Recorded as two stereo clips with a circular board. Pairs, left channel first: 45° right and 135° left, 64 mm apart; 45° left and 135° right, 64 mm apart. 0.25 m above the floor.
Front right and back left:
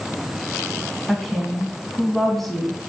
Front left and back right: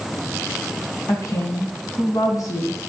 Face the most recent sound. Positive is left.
turn(degrees=40)